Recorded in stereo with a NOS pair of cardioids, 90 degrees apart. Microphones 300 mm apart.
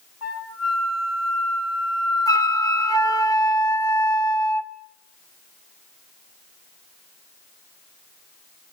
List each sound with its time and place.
0.2 s a flute: 60° left, 5.5 m
2.3 s a flute: 10° left, 0.8 m